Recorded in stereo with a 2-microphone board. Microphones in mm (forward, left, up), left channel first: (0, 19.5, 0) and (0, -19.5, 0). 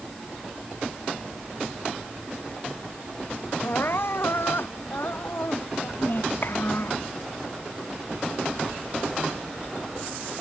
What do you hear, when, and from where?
3.6 s crying: 70° left (ahead or behind)
6.0 s a child speaking: 60° left (ahead or behind)